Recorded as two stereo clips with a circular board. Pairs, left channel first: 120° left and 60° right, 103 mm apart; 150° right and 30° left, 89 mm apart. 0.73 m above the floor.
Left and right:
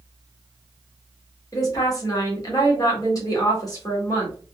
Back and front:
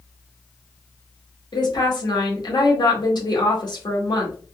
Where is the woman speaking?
175° left, 1.7 m.